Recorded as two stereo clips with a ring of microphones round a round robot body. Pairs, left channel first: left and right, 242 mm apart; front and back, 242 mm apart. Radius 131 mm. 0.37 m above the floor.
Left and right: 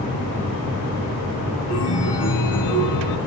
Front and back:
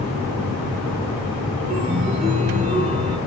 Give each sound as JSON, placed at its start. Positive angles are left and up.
{"t": 1.7, "sound": "a chime", "azimuth_deg": 110, "distance_m": 3.0}